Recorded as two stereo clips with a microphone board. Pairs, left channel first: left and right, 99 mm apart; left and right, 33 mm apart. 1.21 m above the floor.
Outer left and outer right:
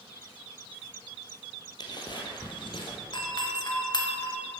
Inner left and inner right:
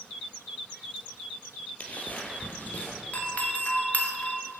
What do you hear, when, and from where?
1.8 s footsteps: 45° left (ahead or behind), 1.9 m; by 3.0 s 55° left (ahead or behind), 2.5 m
3.1 s a doorbell: 45° left (ahead or behind), 1.6 m